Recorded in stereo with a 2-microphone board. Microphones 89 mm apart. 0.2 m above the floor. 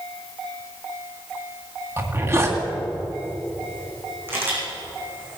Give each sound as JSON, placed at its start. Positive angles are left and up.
{"t": 2.0, "sound": "a zipper", "side_deg": -35, "distance_m": 1.9}
{"t": 4.3, "sound": "a camera shutter", "side_deg": -25, "distance_m": 5.5}